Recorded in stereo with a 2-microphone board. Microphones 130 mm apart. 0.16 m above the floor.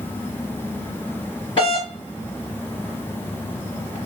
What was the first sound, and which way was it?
A doorbell, 40° left (ahead or behind).